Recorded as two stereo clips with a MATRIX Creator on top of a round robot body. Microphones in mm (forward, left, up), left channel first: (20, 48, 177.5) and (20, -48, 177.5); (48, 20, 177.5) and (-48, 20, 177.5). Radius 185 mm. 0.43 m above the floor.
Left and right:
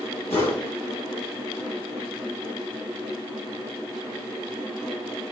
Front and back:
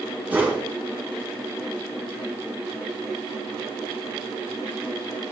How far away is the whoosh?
About 2.5 m.